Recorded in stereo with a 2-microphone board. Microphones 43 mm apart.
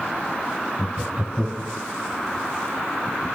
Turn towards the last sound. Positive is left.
turn(degrees=-20)  # may be behind; listen again after turning